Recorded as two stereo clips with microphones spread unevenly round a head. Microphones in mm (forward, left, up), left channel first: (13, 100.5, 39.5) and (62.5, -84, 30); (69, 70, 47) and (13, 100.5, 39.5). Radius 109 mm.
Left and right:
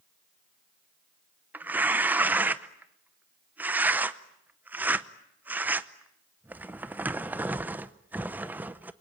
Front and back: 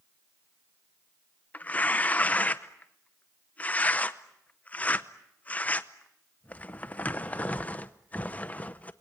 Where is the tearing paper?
5° left, 0.7 m.